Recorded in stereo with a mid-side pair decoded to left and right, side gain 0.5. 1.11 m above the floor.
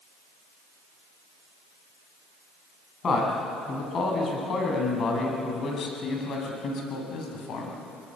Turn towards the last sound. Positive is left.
turn(degrees=65)